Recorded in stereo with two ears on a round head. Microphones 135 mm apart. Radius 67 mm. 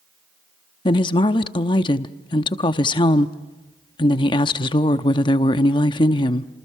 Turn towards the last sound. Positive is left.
turn(degrees=30)  # may be behind; listen again after turning